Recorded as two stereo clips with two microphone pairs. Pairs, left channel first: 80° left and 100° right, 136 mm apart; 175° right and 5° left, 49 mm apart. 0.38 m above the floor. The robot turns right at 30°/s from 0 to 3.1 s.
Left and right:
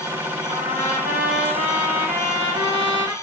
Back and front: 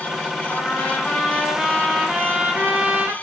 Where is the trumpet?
115° right, 0.7 m; by 3.1 s 35° right, 0.7 m.